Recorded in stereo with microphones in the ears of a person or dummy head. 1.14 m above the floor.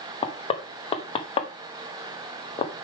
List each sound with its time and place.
0.2 s knocking: 30° left (ahead or behind), 1.0 m